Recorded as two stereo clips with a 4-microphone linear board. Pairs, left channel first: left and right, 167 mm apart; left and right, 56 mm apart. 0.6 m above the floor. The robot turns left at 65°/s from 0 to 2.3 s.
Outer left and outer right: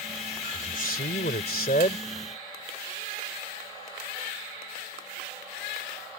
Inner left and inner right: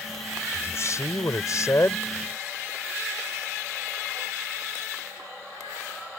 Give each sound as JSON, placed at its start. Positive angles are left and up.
{"t": 0.5, "sound": "a man speaking", "azimuth_deg": 135}